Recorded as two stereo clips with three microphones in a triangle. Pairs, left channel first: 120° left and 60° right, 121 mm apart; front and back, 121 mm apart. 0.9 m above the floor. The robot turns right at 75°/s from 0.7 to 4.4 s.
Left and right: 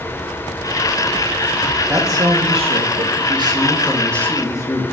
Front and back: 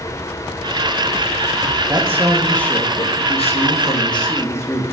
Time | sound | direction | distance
1.9 | a man speaking | 130° right | 1.5 m